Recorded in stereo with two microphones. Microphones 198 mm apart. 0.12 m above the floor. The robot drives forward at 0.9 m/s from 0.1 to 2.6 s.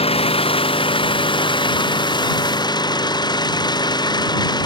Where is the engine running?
30° left (ahead or behind); by 4.7 s 20° left (ahead or behind).